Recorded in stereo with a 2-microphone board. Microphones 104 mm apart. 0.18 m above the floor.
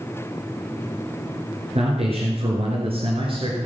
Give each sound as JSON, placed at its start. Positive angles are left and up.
{"t": 1.8, "sound": "a man speaking", "side_deg": -65, "distance_m": 3.0}